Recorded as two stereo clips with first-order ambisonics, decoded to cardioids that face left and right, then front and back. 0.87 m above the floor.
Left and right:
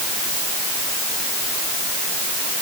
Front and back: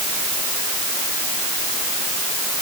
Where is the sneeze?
No sneeze in this recording.